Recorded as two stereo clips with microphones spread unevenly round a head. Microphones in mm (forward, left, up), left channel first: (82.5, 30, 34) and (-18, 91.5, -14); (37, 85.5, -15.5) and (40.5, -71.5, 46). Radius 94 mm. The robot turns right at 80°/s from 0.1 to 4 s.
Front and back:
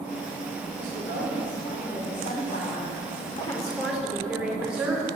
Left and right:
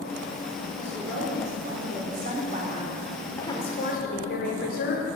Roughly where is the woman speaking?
Behind.